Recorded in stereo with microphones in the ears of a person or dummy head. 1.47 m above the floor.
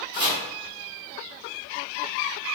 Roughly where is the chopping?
Right.